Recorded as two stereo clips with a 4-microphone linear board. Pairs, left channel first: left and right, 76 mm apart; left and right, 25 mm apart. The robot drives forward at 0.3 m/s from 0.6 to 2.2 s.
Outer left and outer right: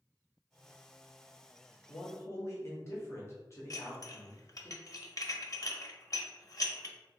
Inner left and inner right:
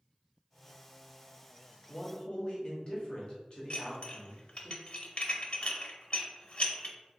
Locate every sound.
1.9 s a man speaking: 40° left (ahead or behind), 1.1 m; by 4.7 s 35° left (ahead or behind), 1.1 m
3.7 s dishes clattering: 50° left (ahead or behind), 0.6 m